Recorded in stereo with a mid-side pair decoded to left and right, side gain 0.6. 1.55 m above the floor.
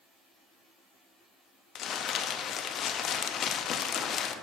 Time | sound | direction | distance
1.8 | crumpling | 50° left | 0.6 m